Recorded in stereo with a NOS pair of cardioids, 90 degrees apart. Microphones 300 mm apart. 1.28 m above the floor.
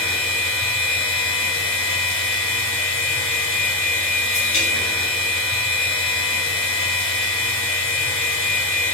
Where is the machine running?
45° left, 1.0 m.